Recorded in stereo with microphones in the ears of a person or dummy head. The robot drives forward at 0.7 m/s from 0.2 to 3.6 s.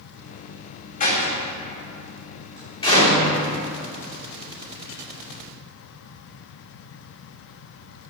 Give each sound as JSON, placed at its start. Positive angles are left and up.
{"t": 1.0, "sound": "a door slam", "side_deg": 45, "distance_m": 1.9}